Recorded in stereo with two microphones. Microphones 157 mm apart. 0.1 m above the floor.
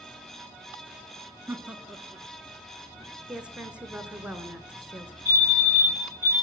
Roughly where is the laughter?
Centre.